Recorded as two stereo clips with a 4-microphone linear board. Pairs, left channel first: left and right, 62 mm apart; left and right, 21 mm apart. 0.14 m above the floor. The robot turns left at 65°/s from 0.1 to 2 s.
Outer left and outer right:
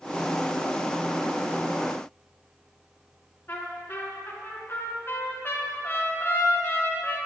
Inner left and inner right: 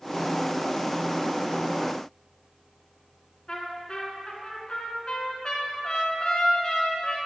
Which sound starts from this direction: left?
A trumpet, at 3.5 s.